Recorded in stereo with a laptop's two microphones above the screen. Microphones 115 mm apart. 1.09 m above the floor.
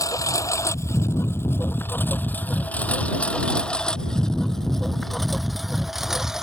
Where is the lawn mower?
30° left (ahead or behind); by 6.4 s 5° right (ahead or behind).